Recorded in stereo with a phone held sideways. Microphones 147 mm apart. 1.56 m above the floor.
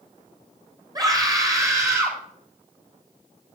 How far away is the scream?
About 6.5 m.